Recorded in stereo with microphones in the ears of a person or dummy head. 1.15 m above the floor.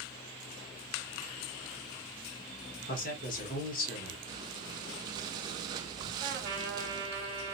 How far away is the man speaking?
About 1.2 m.